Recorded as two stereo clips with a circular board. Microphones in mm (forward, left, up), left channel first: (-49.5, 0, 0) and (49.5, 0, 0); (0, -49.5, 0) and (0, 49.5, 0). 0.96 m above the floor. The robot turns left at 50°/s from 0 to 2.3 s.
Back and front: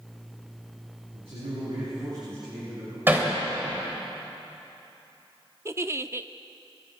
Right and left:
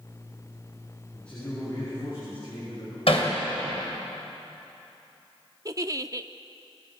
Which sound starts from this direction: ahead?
A man speaking, at 1.1 s.